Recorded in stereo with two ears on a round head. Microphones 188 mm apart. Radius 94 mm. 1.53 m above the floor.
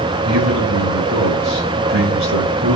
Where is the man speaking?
60° right (ahead or behind), 6.5 m.